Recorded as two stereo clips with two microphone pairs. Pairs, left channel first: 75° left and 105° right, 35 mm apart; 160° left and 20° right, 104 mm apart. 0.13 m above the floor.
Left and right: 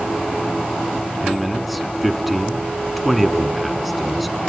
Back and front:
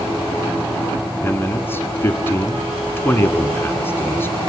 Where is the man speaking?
170° left, 1.2 m.